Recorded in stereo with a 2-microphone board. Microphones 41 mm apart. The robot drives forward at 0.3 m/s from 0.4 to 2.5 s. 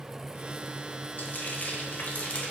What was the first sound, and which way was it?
Frying, 50° left (ahead or behind).